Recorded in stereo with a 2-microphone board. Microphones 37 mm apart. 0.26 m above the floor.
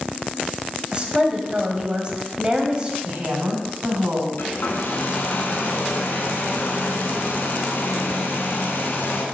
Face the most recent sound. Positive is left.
turn(degrees=70)  # may be behind; listen again after turning